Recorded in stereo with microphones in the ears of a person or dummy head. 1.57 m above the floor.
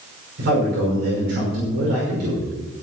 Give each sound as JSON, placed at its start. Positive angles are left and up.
{"t": 0.4, "sound": "a man speaking", "side_deg": -60, "distance_m": 6.0}